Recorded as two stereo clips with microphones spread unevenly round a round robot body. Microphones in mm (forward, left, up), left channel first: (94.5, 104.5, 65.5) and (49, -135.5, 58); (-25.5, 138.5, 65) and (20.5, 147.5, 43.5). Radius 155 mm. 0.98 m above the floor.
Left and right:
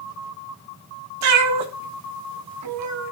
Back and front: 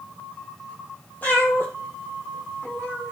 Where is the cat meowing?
95° right, 1.1 m.